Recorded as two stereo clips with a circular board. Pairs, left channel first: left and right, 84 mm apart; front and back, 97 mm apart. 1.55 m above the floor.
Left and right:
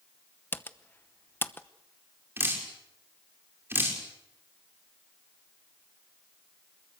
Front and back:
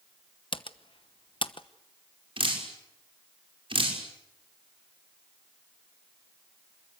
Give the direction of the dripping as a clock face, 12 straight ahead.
5 o'clock.